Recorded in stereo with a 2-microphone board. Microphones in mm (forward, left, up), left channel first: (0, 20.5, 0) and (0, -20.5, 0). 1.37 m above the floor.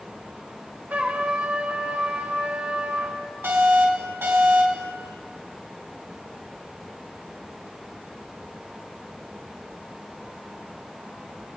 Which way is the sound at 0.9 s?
40° right (ahead or behind).